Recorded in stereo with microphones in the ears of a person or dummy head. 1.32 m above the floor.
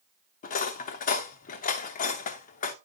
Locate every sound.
0.4 s cutlery clinking: 40° left (ahead or behind), 0.7 m